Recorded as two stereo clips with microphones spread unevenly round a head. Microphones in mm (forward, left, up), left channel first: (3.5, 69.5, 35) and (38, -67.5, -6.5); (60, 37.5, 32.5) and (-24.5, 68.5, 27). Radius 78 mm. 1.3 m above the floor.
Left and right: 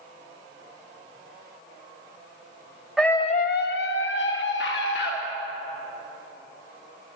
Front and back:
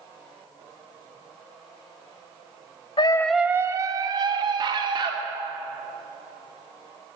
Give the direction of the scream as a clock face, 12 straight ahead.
11 o'clock.